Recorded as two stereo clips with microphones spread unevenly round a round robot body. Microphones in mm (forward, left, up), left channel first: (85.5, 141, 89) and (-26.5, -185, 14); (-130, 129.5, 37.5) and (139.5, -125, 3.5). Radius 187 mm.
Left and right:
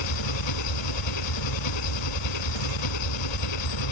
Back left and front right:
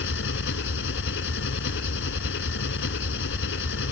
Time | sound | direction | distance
0.0 | an engine running | 75° left | ?